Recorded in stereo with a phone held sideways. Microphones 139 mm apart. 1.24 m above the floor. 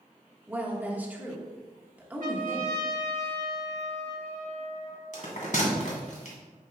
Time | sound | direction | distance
0.5 | a woman speaking | 10° right (ahead or behind) | 1.5 m
2.2 | a trumpet | 70° right (ahead or behind) | 1.6 m
5.1 | a bell | 65° left (ahead or behind) | 2.5 m